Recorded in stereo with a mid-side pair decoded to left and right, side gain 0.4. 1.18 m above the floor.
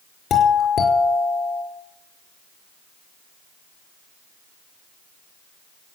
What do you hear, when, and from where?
0.3 s a doorbell: 65° left, 5 m